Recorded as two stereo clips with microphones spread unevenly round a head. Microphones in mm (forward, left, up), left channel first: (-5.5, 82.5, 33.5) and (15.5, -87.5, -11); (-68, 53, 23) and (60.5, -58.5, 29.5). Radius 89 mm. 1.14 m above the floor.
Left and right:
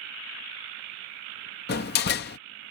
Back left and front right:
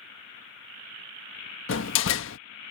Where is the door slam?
130° left.